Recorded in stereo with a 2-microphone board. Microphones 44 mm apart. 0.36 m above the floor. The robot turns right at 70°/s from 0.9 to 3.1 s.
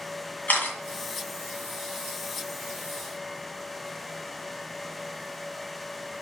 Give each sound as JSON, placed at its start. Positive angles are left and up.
{"t": 0.5, "sound": "a camera shutter", "side_deg": 40, "distance_m": 2.5}